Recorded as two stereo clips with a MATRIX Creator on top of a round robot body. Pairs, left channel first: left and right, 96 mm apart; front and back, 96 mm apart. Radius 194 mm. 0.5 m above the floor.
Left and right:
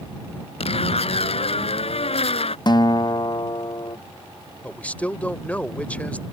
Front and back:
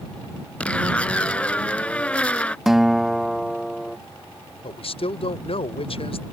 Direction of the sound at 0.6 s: 80° left.